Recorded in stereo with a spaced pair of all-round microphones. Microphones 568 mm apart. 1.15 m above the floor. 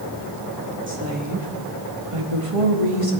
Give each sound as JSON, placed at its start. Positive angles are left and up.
{"t": 0.9, "sound": "a woman speaking", "side_deg": -20, "distance_m": 2.0}